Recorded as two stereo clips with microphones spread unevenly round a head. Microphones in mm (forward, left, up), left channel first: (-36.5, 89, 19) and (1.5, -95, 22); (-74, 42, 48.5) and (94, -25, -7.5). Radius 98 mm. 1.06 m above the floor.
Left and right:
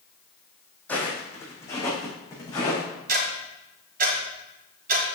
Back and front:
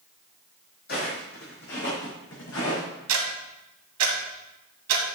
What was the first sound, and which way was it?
Footsteps, straight behind.